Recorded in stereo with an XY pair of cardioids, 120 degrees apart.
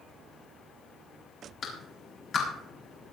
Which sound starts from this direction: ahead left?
A clap, at 1.6 s.